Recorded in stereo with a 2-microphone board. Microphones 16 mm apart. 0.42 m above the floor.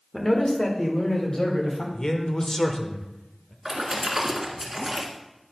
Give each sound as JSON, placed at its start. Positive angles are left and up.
{"t": 0.1, "sound": "a man speaking", "side_deg": 25, "distance_m": 1.2}
{"t": 1.9, "sound": "a man speaking", "side_deg": 40, "distance_m": 0.9}
{"t": 3.6, "sound": "a splash", "side_deg": -20, "distance_m": 1.5}